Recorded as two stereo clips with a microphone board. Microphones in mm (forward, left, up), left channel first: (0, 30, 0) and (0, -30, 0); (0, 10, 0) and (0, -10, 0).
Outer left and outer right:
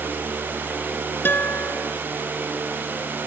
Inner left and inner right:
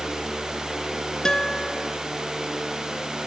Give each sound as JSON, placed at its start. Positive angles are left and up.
{"t": 1.2, "sound": "a guitar", "side_deg": 35}